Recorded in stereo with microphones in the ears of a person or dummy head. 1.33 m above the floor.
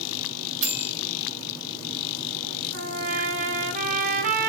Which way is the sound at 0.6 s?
65° right (ahead or behind).